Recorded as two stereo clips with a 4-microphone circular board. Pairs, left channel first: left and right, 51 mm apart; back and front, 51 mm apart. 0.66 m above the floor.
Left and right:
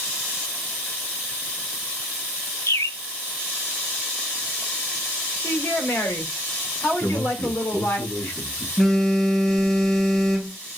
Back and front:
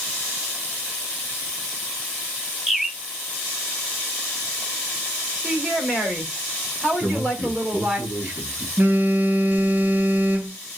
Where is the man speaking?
50° left, 5.5 m.